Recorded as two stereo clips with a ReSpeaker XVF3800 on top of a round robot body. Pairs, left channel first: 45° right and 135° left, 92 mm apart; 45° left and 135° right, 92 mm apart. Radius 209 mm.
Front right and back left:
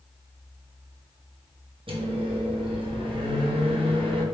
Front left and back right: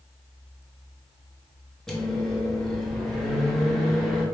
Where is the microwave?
130° left, 1.3 m.